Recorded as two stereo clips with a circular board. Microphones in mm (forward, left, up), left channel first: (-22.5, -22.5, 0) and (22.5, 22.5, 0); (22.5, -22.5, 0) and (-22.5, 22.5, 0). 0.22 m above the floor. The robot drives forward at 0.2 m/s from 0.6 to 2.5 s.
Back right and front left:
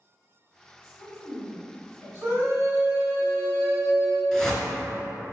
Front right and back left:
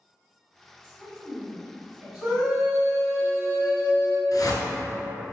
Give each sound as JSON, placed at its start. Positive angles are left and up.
{"t": 0.8, "sound": "a woman speaking", "azimuth_deg": -155, "distance_m": 1.9}
{"t": 2.2, "sound": "a scream", "azimuth_deg": 90, "distance_m": 2.0}
{"t": 4.3, "sound": "a whoosh", "azimuth_deg": -55, "distance_m": 0.5}